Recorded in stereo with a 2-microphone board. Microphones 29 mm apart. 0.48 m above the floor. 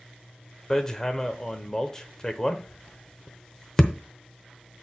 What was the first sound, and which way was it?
Hammering, 15° left (ahead or behind).